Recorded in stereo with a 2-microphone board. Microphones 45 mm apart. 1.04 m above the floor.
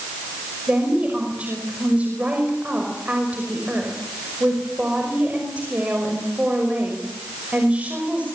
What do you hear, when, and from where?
0.7 s a woman speaking: 30° right (ahead or behind), 5.5 m